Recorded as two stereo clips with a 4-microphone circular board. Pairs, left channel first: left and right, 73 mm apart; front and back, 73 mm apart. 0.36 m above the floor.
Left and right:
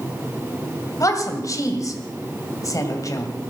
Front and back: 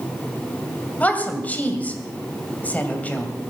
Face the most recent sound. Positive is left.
turn(degrees=65)